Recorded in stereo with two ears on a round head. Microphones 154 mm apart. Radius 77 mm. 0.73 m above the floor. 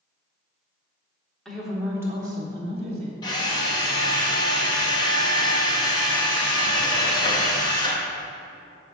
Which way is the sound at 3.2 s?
25° left (ahead or behind).